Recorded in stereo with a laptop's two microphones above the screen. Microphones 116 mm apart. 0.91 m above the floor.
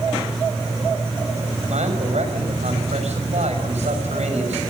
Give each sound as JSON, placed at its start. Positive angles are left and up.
{"t": 1.7, "sound": "a man speaking", "side_deg": -75, "distance_m": 6.5}